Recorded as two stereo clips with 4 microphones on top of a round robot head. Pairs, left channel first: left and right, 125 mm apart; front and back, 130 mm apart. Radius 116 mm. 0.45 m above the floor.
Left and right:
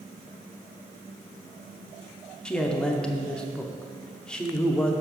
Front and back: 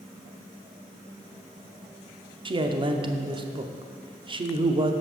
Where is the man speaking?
170° left, 0.9 m.